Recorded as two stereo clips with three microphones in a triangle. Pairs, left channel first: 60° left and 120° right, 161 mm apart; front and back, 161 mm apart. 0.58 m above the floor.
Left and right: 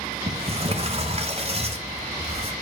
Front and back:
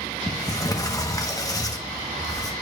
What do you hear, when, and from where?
0.3 s a sliding door: 70° right, 1.1 m